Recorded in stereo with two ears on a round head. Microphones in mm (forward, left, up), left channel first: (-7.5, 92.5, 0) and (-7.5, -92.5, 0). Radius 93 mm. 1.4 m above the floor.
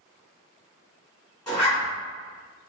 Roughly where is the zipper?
Centre.